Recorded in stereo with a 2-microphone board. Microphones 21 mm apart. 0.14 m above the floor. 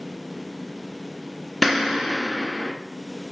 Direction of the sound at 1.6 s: 5° left (ahead or behind).